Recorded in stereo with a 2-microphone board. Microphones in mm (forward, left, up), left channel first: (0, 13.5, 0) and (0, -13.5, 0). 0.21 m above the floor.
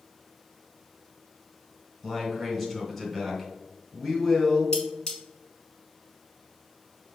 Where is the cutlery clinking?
30° left (ahead or behind), 1.5 m.